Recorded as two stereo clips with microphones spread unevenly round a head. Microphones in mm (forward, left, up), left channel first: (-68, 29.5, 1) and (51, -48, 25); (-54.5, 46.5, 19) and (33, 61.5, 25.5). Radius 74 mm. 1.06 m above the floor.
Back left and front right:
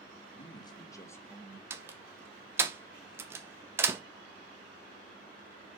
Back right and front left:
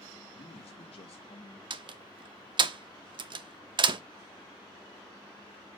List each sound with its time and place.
0.3 s a man speaking: 160° right, 1.6 m; by 1.6 s 130° right, 1.5 m
1.7 s a door slam: 45° left, 0.8 m